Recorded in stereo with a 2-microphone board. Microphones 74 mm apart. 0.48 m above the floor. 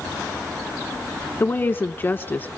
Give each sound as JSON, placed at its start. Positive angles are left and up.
{"t": 1.4, "sound": "a woman speaking", "side_deg": 25, "distance_m": 1.1}